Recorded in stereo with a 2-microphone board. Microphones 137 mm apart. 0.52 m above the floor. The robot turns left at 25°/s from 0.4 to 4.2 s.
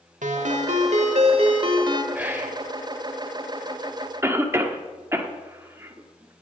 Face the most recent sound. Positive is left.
turn(degrees=-20)  # may be behind; listen again after turning